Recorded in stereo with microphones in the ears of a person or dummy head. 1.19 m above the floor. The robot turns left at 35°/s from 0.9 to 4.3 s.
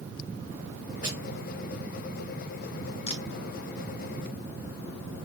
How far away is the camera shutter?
About 1.5 m.